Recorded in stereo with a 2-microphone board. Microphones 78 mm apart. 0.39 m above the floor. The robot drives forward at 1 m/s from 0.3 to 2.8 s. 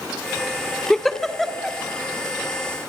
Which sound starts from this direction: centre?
A giggle, at 0.9 s.